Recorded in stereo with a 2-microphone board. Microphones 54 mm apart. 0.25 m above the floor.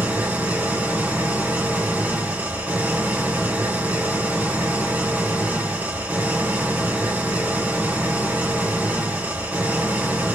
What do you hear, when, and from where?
0.0 s an engine running: 30° right (ahead or behind), 2.5 m